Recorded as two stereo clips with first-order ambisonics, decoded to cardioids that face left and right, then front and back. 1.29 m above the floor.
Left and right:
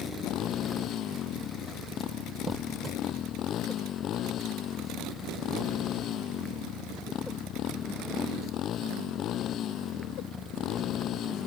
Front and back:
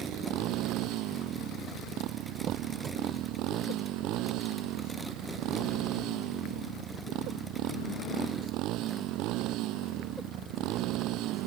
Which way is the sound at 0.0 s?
140° left.